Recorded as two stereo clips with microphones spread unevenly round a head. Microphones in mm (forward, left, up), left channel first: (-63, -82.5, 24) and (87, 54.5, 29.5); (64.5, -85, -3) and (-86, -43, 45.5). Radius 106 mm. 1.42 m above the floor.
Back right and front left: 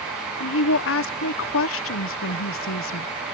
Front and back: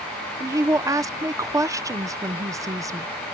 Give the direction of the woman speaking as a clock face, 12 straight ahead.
4 o'clock.